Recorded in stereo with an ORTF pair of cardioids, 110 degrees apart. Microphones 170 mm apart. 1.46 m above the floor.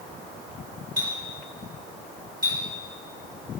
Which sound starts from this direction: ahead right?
A clink, at 1.0 s.